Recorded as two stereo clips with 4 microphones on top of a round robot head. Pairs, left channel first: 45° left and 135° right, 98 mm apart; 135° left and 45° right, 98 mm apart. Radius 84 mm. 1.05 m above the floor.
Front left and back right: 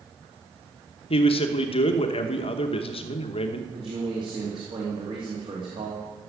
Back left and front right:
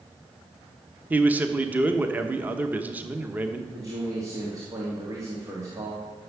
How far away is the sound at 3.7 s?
About 2.5 m.